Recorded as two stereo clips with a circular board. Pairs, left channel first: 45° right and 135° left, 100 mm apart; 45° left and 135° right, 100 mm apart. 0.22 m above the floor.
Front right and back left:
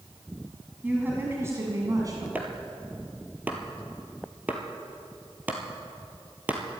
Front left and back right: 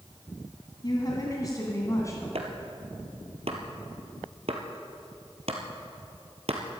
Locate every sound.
0.8 s a woman speaking: 65° left, 1.9 m; by 2.2 s 95° left, 2 m
2.4 s chopping: 150° right, 1.9 m